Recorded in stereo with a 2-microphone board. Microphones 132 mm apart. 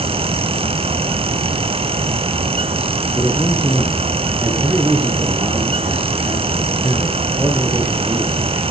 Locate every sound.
3.1 s a man speaking: 15° right (ahead or behind), 3.5 m